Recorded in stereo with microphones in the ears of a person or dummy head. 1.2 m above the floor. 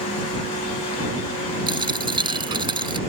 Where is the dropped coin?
25° right (ahead or behind).